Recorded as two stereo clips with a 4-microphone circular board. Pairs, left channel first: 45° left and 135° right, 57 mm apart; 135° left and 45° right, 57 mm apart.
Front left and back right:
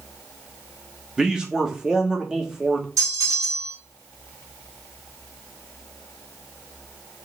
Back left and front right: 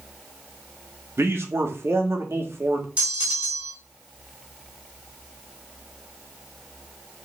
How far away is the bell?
About 2.5 m.